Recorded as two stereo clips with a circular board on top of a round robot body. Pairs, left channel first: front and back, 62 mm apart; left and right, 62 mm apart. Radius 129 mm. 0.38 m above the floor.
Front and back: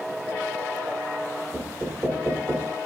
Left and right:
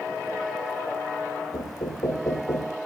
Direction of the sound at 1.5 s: 110° left.